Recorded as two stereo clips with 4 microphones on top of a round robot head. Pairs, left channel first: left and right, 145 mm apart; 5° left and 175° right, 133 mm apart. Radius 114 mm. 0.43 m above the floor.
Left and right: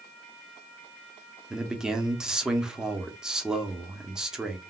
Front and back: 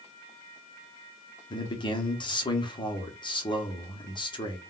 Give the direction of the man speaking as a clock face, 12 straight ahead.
12 o'clock.